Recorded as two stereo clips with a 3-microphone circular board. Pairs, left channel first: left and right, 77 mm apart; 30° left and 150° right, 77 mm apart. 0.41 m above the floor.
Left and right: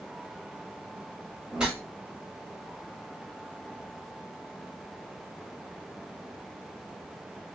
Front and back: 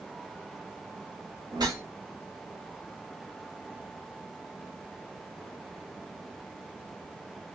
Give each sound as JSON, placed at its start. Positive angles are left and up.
{"t": 1.5, "sound": "a whoosh", "azimuth_deg": -170, "distance_m": 1.0}